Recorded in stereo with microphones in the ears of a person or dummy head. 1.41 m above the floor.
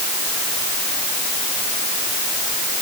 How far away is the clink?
I don't hear a clink.